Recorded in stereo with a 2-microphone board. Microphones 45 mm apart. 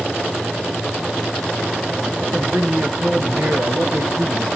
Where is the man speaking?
65° right (ahead or behind), 5.5 m.